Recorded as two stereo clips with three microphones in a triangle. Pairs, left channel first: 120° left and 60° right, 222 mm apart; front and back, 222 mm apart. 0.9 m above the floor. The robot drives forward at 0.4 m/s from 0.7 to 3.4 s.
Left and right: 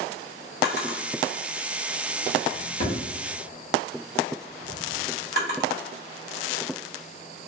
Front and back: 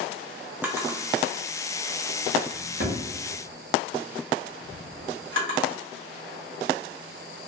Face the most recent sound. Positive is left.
turn(degrees=160)